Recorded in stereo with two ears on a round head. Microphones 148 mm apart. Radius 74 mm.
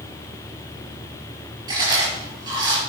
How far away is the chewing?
About 5 m.